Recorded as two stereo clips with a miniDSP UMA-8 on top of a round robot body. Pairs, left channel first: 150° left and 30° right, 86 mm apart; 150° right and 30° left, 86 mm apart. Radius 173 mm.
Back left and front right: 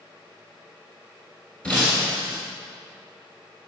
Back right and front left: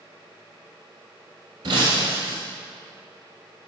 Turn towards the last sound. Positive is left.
turn(degrees=75)